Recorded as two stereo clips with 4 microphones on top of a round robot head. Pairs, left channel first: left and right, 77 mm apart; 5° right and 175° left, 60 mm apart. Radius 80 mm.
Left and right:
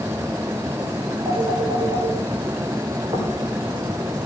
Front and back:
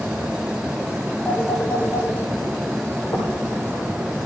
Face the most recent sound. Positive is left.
turn(degrees=-60)